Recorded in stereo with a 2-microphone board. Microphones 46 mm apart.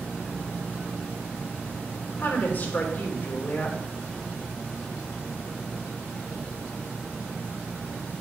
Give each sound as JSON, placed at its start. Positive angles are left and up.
{"t": 2.2, "sound": "a woman speaking", "side_deg": 45, "distance_m": 2.5}